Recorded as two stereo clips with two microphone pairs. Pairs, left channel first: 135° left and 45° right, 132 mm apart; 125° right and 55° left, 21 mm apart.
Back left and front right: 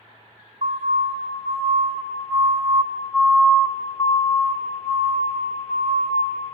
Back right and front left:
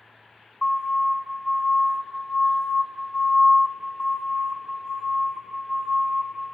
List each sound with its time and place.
0.6 s a siren: 55° right, 3 m; by 6.2 s 120° left, 3 m